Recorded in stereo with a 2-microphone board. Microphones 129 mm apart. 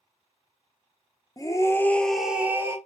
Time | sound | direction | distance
1.4 | a scream | 30° left (ahead or behind) | 0.8 m